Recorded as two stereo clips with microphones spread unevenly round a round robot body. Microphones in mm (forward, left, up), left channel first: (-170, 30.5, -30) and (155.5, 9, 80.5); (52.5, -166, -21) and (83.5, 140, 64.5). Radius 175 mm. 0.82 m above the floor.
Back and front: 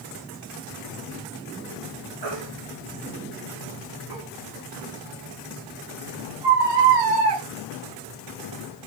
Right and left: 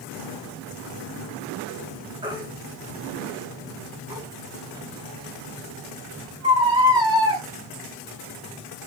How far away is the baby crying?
About 9.5 m.